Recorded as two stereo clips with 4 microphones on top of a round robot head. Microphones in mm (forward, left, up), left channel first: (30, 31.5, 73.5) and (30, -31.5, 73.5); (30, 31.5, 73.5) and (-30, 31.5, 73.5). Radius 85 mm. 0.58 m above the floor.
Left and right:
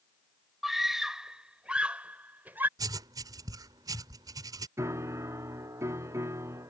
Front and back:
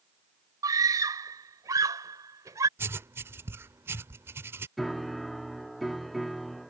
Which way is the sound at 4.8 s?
85° right.